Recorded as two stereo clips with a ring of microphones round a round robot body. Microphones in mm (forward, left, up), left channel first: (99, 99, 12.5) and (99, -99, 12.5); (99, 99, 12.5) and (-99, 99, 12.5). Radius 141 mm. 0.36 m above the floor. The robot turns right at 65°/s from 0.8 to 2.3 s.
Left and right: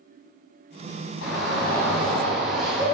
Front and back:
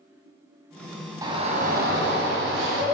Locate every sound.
1.2 s a shout: 110° left, 2.5 m; by 2.8 s straight behind, 2.5 m